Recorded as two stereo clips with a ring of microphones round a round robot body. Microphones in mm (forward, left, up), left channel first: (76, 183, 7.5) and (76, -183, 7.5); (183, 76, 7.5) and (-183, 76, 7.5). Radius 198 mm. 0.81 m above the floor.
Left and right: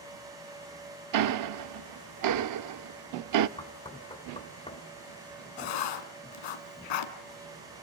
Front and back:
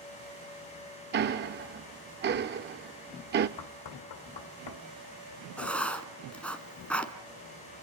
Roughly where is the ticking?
Behind right.